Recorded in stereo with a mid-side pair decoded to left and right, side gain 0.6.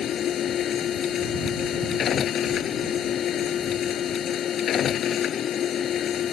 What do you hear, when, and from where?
0.0 s a machine running: 45° left